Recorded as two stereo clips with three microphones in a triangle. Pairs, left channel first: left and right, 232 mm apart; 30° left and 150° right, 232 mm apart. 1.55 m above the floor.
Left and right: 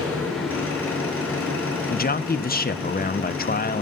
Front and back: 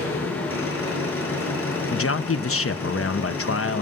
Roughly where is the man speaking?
Ahead left.